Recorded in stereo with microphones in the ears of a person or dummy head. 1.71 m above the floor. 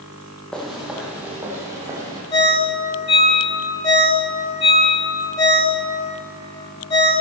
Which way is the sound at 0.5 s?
5° left (ahead or behind).